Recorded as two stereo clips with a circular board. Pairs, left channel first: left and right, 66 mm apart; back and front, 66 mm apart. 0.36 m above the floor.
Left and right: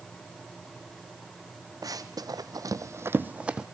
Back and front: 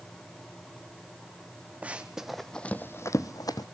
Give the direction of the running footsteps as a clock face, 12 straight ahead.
2 o'clock.